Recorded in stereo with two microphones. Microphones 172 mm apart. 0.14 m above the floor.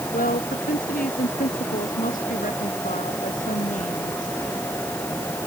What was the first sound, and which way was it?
A woman speaking, 55° left (ahead or behind).